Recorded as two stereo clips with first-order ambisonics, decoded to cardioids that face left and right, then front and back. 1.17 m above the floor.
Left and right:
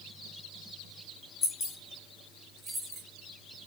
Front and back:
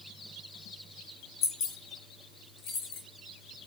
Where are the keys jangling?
35° left, 0.9 m; by 3.0 s 25° right, 1.0 m.